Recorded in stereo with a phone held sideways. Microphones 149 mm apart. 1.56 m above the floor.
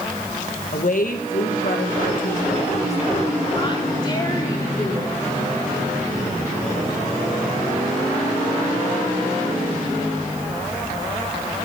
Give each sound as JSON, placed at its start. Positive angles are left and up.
{"t": 0.7, "sound": "a woman speaking", "side_deg": 60, "distance_m": 1.8}